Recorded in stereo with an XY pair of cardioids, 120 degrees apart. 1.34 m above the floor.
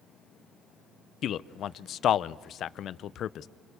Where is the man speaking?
55° left, 0.7 m.